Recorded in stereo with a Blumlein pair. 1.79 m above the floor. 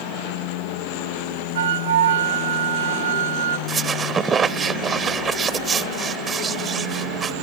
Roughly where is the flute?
Ahead right.